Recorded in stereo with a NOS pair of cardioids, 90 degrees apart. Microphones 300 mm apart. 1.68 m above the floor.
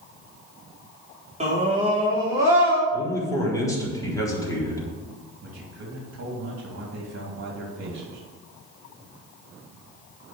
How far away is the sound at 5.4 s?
About 3 m.